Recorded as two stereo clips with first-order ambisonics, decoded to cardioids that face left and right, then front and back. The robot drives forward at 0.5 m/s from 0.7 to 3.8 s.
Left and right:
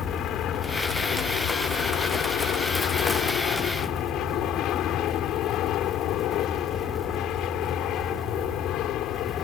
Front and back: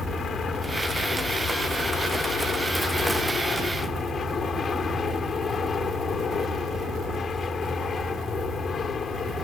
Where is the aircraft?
60° left.